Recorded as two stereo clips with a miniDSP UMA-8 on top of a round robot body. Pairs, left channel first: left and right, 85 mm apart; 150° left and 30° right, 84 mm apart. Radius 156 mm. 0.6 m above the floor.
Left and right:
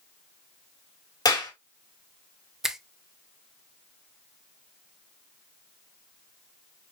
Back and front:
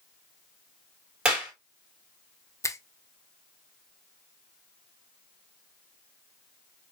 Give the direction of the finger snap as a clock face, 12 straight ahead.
6 o'clock.